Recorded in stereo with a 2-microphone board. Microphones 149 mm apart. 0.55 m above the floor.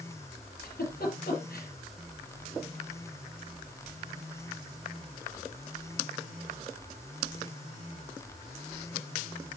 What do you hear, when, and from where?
0.6 s a giggle: 75° left (ahead or behind), 5 m